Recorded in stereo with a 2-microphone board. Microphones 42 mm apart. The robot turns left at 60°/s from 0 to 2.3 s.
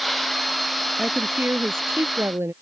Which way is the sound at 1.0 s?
25° right.